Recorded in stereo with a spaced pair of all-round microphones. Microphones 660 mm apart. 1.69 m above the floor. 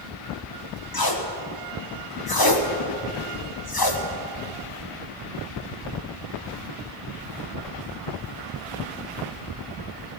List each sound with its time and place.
0.9 s tape being pulled: 35° left (ahead or behind), 1.2 m